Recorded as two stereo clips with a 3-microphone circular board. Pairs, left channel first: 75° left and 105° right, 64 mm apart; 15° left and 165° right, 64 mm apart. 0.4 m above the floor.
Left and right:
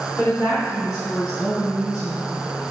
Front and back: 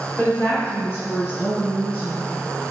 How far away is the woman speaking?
About 4 m.